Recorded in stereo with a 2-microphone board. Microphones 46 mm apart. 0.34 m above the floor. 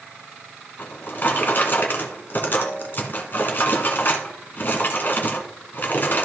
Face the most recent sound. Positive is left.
turn(degrees=45)  # may be behind; listen again after turning